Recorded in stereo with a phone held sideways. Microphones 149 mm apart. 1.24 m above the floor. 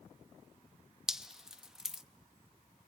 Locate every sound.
1.1 s dripping: 5° right (ahead or behind), 0.8 m